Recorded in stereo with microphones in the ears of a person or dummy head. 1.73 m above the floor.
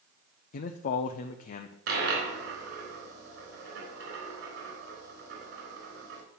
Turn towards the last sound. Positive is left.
turn(degrees=-65)  # may be behind; listen again after turning